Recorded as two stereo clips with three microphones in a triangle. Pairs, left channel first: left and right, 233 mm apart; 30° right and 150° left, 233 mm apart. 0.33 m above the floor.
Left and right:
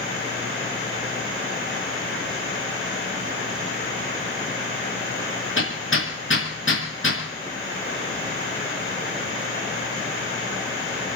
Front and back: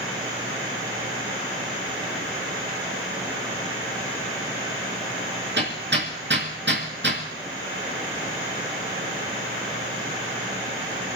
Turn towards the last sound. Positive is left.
turn(degrees=115)